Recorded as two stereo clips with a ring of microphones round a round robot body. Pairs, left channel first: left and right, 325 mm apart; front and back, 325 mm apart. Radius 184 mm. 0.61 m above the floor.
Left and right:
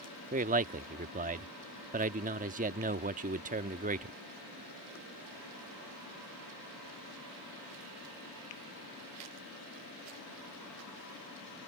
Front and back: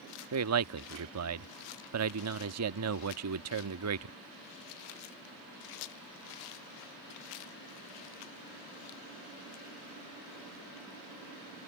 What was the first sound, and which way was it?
A man speaking, 150° right.